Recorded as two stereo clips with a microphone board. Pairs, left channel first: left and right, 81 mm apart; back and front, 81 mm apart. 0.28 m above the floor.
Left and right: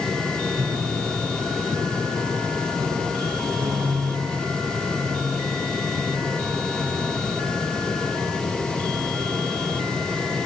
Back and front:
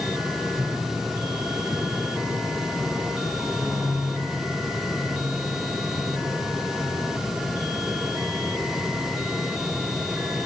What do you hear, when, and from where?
0.6 s a piano: 70° right, 6.5 m